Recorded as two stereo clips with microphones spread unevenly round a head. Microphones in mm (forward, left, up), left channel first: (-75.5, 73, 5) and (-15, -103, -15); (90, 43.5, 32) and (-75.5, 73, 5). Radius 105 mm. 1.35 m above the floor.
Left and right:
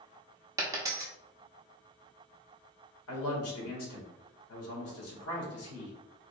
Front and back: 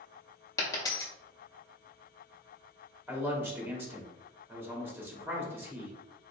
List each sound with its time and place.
0.6 s a dropped coin: straight ahead, 0.8 m
3.1 s a man speaking: 95° left, 1.7 m